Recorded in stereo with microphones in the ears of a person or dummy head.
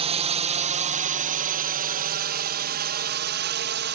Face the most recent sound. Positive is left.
turn(degrees=-50)  # may be behind; listen again after turning